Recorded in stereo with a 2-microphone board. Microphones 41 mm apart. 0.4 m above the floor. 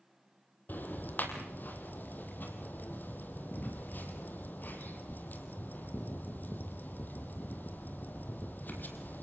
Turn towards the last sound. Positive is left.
turn(degrees=50)  # may be behind; listen again after turning